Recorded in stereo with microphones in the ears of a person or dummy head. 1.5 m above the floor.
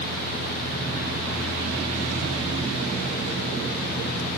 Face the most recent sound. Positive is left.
No sound to turn to.